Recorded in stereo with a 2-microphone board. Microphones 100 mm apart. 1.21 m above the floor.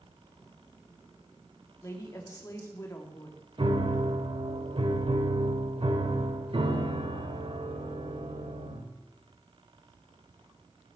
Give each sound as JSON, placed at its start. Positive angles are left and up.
{"t": 1.8, "sound": "a woman speaking", "side_deg": 30, "distance_m": 2.5}
{"t": 3.6, "sound": "a piano", "side_deg": -60, "distance_m": 1.5}